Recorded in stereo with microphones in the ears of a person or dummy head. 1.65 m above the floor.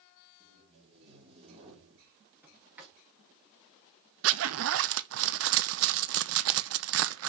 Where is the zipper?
70° right (ahead or behind), 0.6 m.